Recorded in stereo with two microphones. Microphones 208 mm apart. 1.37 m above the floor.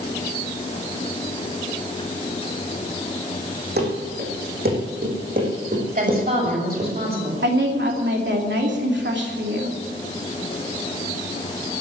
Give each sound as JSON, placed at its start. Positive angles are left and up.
{"t": 3.8, "sound": "running footsteps", "side_deg": -55, "distance_m": 5.0}
{"t": 6.0, "sound": "a woman speaking", "side_deg": -45, "distance_m": 7.0}
{"t": 7.4, "sound": "a woman speaking", "side_deg": -65, "distance_m": 3.0}